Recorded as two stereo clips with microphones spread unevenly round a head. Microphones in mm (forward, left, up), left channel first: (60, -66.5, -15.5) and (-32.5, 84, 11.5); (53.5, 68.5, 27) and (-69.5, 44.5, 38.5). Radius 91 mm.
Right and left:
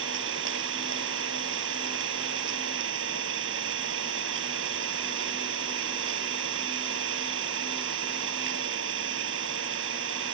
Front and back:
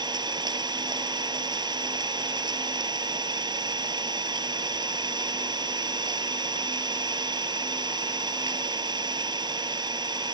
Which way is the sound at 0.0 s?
140° left.